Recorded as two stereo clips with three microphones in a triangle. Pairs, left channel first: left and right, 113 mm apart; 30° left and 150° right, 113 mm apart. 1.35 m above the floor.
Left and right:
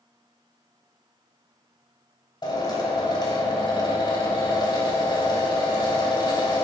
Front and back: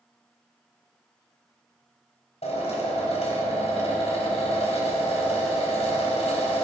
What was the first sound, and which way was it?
A drill, 40° left.